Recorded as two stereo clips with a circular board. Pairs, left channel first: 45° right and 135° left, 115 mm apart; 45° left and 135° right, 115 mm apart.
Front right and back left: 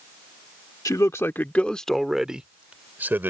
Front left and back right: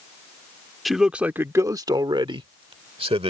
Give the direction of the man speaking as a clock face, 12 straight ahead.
1 o'clock.